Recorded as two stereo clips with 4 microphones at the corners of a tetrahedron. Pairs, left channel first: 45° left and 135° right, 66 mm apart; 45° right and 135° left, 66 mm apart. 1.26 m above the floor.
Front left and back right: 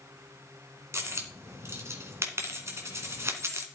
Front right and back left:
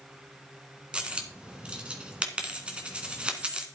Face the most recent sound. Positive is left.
turn(degrees=-155)